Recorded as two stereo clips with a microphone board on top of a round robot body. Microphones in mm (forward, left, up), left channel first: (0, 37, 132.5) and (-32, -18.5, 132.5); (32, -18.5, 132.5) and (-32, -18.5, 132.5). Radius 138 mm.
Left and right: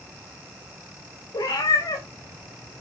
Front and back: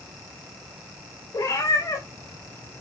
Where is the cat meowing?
35° left, 5 m; by 2.8 s 45° left, 4 m.